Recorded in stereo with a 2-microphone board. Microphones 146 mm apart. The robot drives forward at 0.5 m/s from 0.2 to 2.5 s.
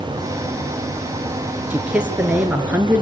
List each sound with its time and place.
1.7 s a man speaking: 10° right (ahead or behind), 3 m